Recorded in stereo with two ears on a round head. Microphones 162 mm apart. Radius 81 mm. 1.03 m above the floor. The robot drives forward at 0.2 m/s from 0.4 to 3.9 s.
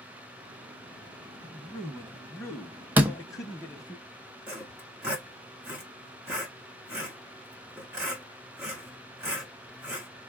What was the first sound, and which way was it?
A man speaking, 10° left (ahead or behind).